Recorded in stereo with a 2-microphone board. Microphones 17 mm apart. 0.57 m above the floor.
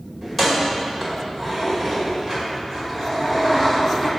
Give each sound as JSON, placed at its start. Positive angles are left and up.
{"t": 0.2, "sound": "keys jangling", "side_deg": 15, "distance_m": 1.8}